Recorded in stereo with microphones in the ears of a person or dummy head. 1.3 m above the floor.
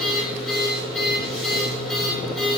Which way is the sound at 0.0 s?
Centre (ahead or behind).